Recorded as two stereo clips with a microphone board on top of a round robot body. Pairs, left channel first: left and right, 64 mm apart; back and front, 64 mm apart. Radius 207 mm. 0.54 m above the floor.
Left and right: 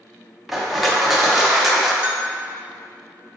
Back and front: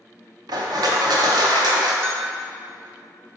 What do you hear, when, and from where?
0.5 s crushing: straight ahead, 0.9 m
2.0 s a bell: 35° right, 1.4 m